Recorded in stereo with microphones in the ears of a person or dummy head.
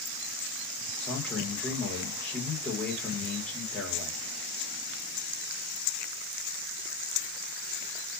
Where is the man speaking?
15° left (ahead or behind), 1.3 m.